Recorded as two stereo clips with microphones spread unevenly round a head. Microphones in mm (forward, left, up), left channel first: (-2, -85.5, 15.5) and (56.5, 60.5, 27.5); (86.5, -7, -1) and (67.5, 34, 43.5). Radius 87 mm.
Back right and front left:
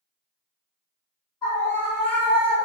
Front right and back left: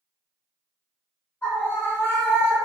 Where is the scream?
45° right, 1.1 m.